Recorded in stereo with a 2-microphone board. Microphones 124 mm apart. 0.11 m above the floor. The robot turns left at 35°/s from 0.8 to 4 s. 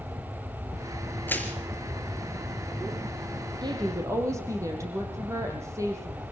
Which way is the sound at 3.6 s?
35° right (ahead or behind).